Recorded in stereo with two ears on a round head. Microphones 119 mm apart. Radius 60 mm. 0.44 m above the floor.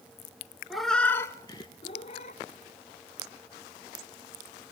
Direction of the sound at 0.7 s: Centre (ahead or behind).